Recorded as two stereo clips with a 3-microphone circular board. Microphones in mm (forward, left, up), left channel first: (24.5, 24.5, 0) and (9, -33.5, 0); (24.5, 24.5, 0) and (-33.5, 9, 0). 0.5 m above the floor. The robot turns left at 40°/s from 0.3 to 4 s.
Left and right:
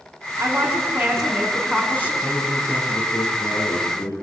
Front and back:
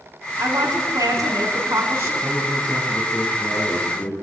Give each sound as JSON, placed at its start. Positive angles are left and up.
{"t": 0.4, "sound": "a woman speaking", "azimuth_deg": -155, "distance_m": 5.0}
{"t": 2.2, "sound": "a man speaking", "azimuth_deg": 115, "distance_m": 7.5}